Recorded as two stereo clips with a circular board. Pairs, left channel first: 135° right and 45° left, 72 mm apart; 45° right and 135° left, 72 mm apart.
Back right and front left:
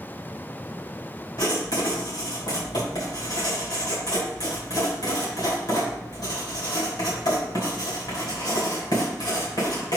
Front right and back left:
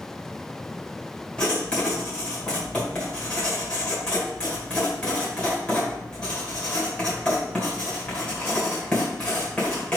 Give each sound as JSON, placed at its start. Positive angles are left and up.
{"t": 1.4, "sound": "writing", "azimuth_deg": -120, "distance_m": 3.0}